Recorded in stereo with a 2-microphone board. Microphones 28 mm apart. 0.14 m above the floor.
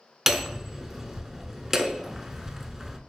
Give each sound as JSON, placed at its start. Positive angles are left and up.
{"t": 0.3, "sound": "hammering", "side_deg": -10, "distance_m": 0.5}